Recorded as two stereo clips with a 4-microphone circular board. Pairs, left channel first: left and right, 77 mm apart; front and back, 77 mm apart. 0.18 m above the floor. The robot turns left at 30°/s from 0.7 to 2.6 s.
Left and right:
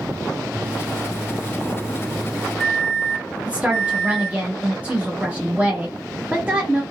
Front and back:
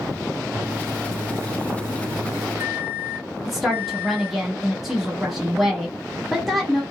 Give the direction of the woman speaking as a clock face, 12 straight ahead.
3 o'clock.